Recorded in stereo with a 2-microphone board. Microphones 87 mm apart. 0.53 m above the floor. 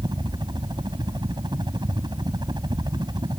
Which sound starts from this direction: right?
A helicopter, at 0.0 s.